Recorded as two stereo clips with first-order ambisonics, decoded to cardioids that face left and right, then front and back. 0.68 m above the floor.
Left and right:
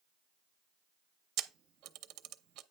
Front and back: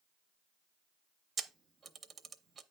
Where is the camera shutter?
110° right, 0.6 m.